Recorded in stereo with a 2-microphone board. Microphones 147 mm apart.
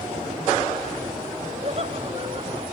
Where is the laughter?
45° right (ahead or behind); by 2.6 s 35° right (ahead or behind).